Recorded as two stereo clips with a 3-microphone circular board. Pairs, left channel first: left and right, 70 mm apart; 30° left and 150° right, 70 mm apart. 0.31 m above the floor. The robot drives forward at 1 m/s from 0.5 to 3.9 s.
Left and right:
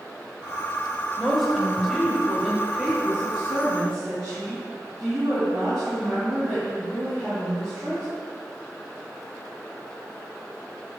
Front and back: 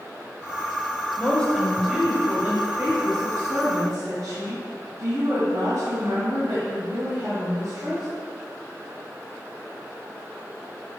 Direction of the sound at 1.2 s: Straight ahead.